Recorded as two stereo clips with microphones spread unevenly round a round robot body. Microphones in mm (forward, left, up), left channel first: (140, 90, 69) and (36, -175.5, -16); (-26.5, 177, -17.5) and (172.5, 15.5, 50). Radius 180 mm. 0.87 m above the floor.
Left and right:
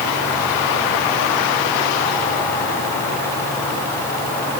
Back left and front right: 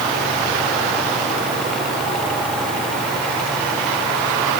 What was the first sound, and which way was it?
Only background noise.